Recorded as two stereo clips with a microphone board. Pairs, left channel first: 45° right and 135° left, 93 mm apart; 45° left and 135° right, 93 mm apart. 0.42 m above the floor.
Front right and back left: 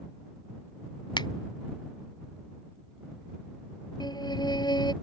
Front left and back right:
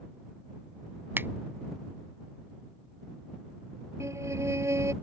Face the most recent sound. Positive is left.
turn(degrees=-80)